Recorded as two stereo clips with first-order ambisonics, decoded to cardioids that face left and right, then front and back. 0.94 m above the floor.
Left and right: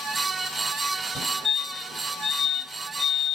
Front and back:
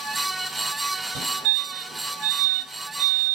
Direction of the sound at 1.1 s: 165° left.